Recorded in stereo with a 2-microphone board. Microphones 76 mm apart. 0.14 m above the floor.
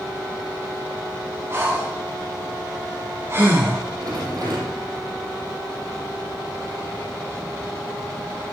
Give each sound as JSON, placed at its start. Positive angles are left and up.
{"t": 1.5, "sound": "breathing", "side_deg": -30, "distance_m": 4.5}
{"t": 4.0, "sound": "a rattle", "side_deg": -60, "distance_m": 3.5}